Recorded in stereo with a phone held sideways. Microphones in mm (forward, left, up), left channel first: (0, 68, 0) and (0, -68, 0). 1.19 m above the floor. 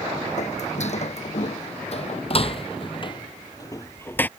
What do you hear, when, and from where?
0.4 s footsteps: 60° left (ahead or behind); by 4.3 s 10° left (ahead or behind)